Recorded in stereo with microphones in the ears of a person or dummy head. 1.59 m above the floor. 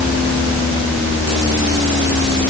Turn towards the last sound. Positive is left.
No sound to turn to.